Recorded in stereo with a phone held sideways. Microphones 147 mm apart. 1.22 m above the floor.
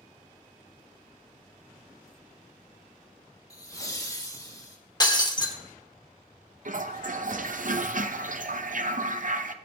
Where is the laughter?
25° left (ahead or behind), 1.5 m.